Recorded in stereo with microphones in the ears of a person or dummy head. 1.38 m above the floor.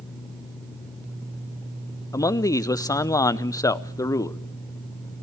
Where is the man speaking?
20° left (ahead or behind), 0.6 m.